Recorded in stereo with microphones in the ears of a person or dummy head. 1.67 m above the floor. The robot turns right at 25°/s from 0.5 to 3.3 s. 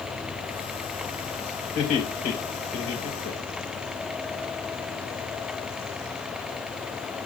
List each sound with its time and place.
1.8 s laughter: 30° left (ahead or behind), 2 m; by 3.8 s 70° left (ahead or behind), 2 m